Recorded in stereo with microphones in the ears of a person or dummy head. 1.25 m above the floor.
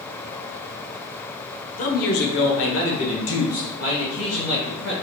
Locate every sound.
1.8 s a man speaking: 35° left (ahead or behind), 0.7 m; by 4.9 s 70° left (ahead or behind), 2 m